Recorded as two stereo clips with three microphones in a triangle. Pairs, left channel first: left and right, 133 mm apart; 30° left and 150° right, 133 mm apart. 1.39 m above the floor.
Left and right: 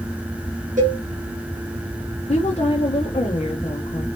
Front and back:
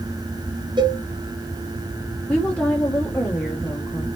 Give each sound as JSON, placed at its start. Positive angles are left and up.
{"t": 0.8, "sound": "a cowbell", "azimuth_deg": -95, "distance_m": 1.0}
{"t": 2.3, "sound": "a woman speaking", "azimuth_deg": 110, "distance_m": 0.7}